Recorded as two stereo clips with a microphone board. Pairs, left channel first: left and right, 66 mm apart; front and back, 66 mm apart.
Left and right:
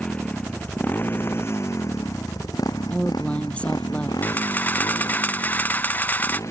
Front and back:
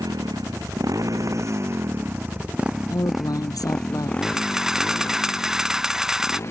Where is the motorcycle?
160° left; by 6.5 s 50° left.